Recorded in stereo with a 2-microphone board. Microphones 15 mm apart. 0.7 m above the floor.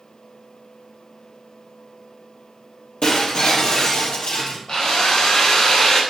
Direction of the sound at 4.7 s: 55° left (ahead or behind).